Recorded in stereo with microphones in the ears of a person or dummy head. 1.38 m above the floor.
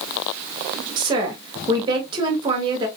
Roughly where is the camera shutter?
No camera shutter in this recording.